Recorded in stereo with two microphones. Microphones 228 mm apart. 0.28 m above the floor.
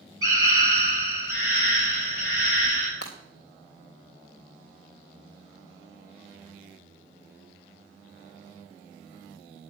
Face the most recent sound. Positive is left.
turn(degrees=85)